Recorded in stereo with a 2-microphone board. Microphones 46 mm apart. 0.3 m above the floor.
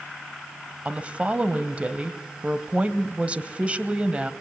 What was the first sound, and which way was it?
A woman speaking, 30° right (ahead or behind).